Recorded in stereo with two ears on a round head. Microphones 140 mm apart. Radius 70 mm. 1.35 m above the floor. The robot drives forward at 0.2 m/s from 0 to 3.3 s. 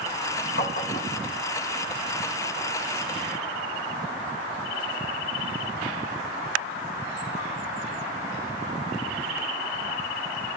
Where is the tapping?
65° left (ahead or behind), 3 m; by 1.2 s 60° left (ahead or behind), 3 m.